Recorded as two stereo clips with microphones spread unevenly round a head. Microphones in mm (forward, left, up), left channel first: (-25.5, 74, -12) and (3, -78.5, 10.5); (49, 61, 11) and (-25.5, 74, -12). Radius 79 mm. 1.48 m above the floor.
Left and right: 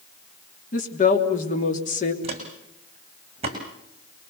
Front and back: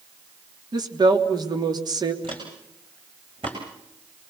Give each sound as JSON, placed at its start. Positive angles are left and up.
{"t": 0.7, "sound": "a woman speaking", "azimuth_deg": 140, "distance_m": 3.0}
{"t": 2.2, "sound": "footsteps", "azimuth_deg": -130, "distance_m": 5.5}